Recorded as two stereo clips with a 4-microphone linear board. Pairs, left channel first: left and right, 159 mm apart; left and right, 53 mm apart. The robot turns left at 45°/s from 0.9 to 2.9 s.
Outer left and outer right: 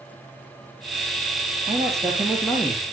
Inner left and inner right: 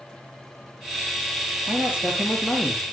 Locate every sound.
1.7 s a man speaking: 145° right, 4.5 m; by 2.8 s 160° left, 4.5 m